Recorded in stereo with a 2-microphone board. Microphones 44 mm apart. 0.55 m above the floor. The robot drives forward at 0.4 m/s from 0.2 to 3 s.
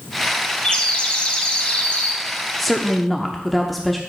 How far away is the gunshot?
I don't hear a gunshot.